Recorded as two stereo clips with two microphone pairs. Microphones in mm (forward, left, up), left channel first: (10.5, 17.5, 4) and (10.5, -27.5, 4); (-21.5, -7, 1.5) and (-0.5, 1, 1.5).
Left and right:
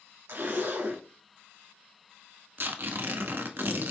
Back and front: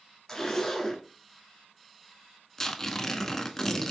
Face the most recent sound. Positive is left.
turn(degrees=-90)